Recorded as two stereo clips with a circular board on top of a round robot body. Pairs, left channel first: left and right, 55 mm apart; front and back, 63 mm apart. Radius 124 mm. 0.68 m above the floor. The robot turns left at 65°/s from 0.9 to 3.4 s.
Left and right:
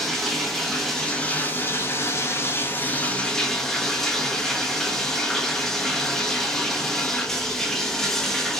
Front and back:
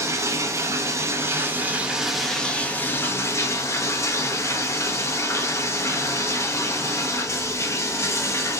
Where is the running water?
175° left, 0.8 m; by 8.6 s 10° left, 0.8 m.